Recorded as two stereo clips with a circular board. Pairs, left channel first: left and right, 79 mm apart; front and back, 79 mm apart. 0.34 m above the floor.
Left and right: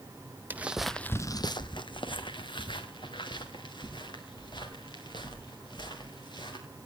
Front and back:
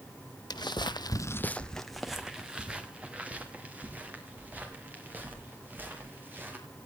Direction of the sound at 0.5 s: 25° right.